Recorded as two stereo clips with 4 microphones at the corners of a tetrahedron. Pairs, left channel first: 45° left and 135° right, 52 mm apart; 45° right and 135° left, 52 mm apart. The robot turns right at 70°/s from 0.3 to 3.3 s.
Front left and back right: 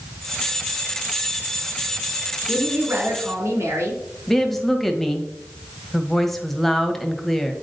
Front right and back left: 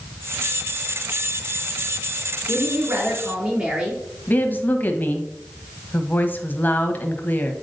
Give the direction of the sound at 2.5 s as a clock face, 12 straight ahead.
7 o'clock.